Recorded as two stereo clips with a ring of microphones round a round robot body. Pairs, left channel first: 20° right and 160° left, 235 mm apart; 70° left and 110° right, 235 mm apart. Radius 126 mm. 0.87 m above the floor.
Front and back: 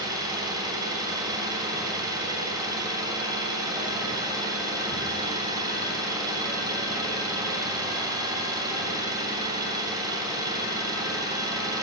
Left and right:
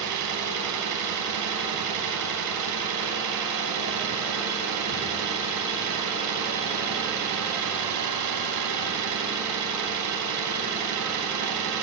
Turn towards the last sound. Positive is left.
turn(degrees=-125)